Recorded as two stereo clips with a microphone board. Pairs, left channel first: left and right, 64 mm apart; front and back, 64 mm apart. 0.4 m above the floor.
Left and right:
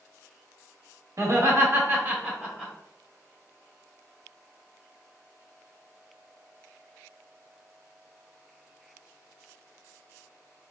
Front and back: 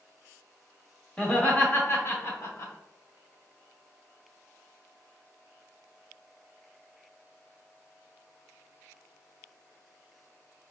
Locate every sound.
1.2 s laughter: 65° right, 1.5 m; by 2.7 s 10° right, 1.4 m